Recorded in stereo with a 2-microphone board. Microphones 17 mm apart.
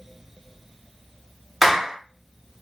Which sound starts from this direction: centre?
A clap, at 1.6 s.